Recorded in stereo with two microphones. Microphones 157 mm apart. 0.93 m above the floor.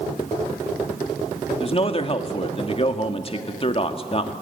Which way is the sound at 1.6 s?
40° left (ahead or behind).